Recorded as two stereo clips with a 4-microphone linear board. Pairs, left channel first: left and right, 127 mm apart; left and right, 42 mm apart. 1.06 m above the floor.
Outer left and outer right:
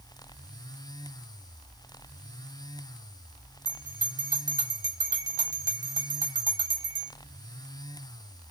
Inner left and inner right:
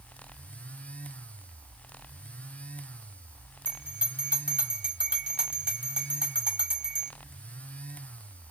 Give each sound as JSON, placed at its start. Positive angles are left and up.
{"t": 3.6, "sound": "a bell", "side_deg": -30, "distance_m": 1.9}